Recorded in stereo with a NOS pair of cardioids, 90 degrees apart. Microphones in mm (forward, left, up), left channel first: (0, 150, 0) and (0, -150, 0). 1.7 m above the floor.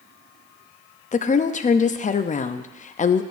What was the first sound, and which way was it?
A woman speaking, 25° left.